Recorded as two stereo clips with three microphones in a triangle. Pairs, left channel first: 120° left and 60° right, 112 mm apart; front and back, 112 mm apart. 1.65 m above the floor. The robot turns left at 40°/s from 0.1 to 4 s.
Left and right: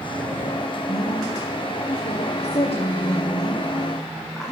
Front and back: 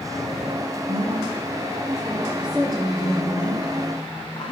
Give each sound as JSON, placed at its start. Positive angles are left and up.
{"t": 0.9, "sound": "a woman speaking", "azimuth_deg": 160, "distance_m": 1.1}